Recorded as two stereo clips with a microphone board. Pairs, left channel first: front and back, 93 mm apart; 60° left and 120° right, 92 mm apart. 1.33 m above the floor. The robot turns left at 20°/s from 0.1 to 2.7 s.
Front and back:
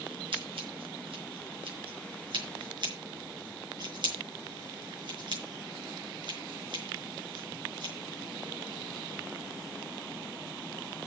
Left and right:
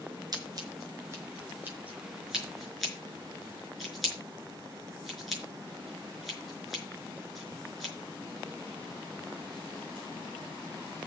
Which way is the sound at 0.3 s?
165° right.